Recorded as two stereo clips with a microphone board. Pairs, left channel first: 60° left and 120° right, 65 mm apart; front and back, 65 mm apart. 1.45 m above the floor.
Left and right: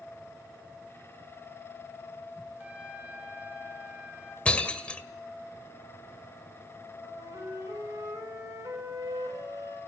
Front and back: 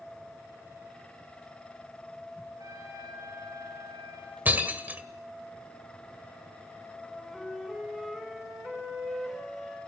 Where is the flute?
95° right, 7 m.